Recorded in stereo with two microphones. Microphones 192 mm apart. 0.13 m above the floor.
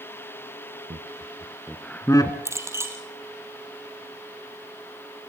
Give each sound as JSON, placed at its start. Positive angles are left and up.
{"t": 0.9, "sound": "laughter", "side_deg": -35, "distance_m": 1.6}
{"t": 2.5, "sound": "a clink", "side_deg": -15, "distance_m": 2.5}